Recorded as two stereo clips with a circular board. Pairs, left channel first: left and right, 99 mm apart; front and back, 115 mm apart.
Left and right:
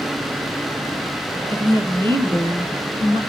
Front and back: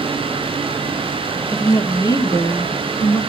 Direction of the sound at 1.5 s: 55° right.